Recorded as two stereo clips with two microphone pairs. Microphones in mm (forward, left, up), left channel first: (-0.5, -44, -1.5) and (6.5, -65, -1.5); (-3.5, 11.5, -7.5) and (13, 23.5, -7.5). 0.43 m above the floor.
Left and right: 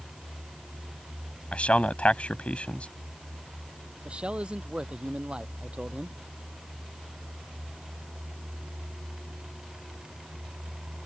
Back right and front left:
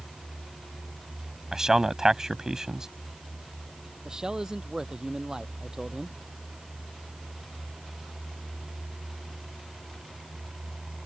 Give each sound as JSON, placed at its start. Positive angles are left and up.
{"t": 1.5, "sound": "a man speaking", "azimuth_deg": 95}
{"t": 4.0, "sound": "a man speaking", "azimuth_deg": -25}